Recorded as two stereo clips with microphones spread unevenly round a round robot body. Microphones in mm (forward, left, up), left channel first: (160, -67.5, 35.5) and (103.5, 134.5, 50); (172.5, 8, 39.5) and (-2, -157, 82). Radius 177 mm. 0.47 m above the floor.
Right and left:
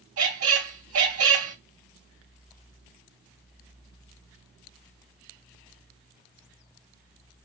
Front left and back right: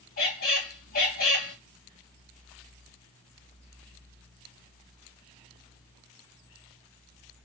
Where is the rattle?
I don't hear a rattle.